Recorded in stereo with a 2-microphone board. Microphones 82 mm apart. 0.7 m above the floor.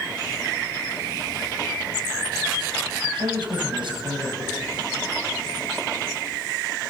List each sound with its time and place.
3.0 s a man speaking: 85° right, 4 m